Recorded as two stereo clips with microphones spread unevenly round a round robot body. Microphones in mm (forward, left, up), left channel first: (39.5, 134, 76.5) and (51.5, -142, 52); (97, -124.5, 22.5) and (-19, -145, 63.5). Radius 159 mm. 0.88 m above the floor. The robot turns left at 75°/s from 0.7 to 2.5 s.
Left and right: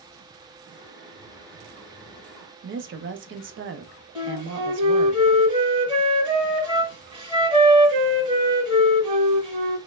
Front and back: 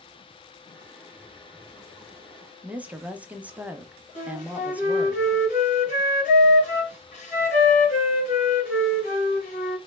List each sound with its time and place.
2.6 s a woman speaking: 75° right, 0.7 m
4.2 s a flute: 10° right, 1.7 m